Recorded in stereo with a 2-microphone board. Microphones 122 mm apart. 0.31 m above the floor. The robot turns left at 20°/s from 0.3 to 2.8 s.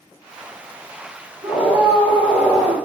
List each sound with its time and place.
1.4 s a scream: 20° right (ahead or behind), 1.2 m